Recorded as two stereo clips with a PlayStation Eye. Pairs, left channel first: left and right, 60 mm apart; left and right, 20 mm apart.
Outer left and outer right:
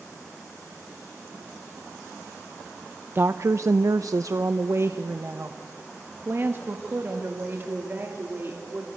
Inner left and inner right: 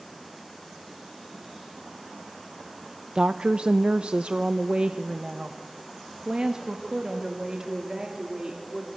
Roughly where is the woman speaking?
Right.